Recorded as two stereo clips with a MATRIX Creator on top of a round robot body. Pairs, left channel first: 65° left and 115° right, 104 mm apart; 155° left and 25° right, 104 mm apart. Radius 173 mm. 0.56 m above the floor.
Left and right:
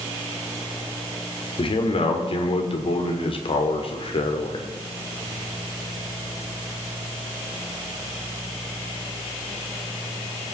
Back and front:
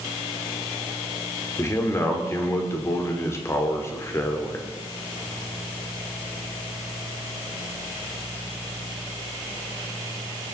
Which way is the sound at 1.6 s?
95° left.